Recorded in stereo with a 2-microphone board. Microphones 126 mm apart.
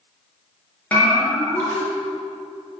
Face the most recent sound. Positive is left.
turn(degrees=10)  # may be behind; listen again after turning